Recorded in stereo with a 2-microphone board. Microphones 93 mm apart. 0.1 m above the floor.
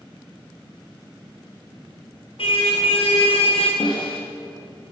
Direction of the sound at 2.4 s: 75° left (ahead or behind).